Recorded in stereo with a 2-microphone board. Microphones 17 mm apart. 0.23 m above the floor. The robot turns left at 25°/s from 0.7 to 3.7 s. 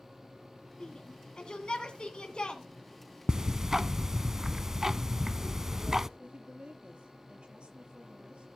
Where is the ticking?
30° right (ahead or behind), 0.6 m; by 6.1 s 20° right (ahead or behind), 0.6 m.